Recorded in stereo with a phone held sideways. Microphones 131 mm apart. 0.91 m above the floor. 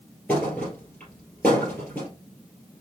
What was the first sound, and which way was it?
A thud, 10° left (ahead or behind).